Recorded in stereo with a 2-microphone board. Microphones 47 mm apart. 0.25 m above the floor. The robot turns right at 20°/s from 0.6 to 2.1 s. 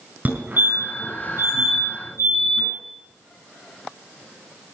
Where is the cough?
I don't hear a cough.